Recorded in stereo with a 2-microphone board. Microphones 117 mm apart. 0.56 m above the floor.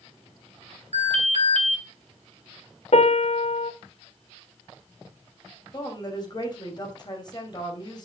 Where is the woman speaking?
35° left (ahead or behind), 2.5 m.